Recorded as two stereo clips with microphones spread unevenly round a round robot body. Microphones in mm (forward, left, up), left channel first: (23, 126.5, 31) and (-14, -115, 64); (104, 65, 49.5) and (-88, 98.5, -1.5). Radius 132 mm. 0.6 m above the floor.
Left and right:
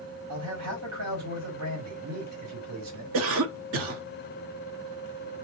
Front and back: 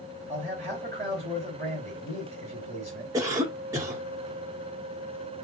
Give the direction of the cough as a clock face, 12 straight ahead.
4 o'clock.